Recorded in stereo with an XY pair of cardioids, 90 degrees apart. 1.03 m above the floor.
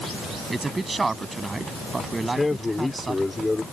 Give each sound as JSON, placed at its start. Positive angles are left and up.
{"t": 0.5, "sound": "a man speaking", "azimuth_deg": -25}
{"t": 2.2, "sound": "a man speaking", "azimuth_deg": 20}